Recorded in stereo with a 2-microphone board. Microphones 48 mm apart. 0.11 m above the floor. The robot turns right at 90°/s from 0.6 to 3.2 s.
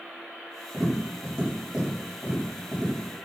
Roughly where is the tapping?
Centre.